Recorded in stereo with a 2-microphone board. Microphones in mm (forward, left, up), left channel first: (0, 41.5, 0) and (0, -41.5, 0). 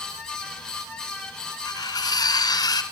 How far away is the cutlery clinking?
About 1.4 m.